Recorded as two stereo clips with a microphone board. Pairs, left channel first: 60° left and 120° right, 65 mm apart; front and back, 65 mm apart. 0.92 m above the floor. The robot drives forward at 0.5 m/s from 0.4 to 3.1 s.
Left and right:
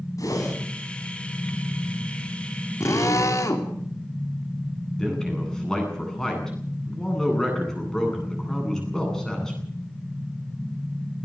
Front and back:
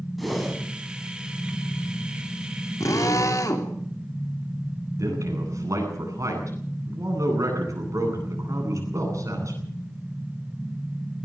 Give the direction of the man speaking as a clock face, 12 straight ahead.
7 o'clock.